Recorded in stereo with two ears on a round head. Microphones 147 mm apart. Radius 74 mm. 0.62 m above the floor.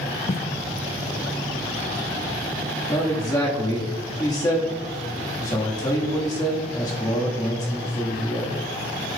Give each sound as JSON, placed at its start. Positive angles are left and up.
{"t": 0.3, "sound": "footsteps", "side_deg": 40, "distance_m": 0.7}
{"t": 2.9, "sound": "a man speaking", "side_deg": 20, "distance_m": 1.2}